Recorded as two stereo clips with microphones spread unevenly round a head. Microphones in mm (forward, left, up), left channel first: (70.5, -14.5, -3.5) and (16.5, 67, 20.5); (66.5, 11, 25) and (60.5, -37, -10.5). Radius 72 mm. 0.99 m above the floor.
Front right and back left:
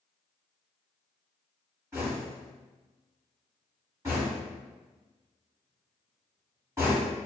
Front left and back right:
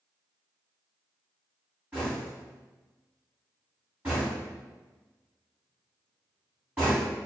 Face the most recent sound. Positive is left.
turn(degrees=-160)